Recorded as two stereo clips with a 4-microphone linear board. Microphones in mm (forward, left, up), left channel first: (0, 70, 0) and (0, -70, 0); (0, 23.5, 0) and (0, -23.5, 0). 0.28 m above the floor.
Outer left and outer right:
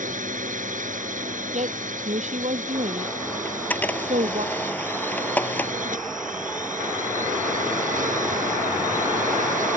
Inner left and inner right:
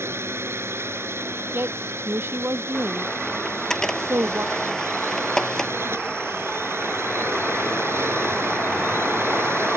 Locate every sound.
0.0 s a drone: 60° right (ahead or behind)
1.5 s a woman speaking: 50° right (ahead or behind)
3.5 s a camera shutter: 10° left (ahead or behind)